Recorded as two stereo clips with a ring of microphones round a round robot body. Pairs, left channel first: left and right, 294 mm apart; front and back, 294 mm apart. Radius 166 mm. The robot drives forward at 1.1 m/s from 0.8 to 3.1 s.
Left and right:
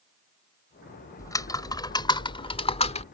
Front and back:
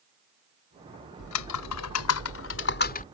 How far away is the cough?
I don't hear a cough.